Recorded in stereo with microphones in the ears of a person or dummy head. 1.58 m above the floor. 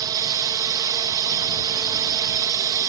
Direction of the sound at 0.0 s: 20° right (ahead or behind).